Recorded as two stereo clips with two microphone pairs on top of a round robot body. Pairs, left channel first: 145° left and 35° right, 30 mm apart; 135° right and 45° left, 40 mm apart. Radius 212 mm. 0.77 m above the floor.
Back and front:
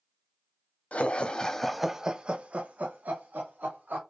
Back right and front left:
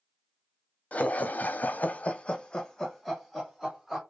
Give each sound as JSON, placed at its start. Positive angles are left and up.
{"t": 0.9, "sound": "laughter", "azimuth_deg": 180, "distance_m": 1.0}